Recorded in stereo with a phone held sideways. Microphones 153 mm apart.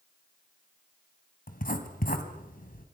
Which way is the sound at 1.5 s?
70° left (ahead or behind).